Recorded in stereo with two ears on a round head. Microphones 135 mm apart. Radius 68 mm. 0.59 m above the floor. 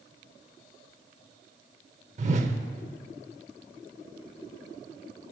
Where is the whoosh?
50° right (ahead or behind), 0.8 m.